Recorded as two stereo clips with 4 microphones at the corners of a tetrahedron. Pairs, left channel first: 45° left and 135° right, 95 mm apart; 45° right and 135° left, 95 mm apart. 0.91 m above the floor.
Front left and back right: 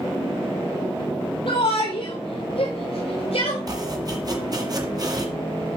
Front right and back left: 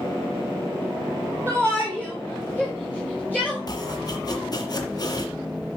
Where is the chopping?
90° right, 2.0 m.